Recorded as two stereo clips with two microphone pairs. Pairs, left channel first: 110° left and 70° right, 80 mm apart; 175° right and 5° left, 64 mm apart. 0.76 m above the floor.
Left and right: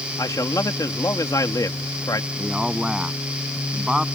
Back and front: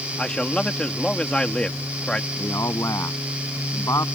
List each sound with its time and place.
0.2 s a man speaking: 115° left
2.4 s a man speaking: 150° right